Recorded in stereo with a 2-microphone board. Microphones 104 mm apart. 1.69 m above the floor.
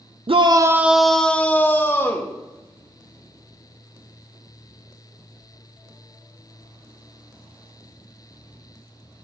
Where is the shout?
60° right (ahead or behind), 0.6 m; by 2.3 s 25° left (ahead or behind), 1.8 m.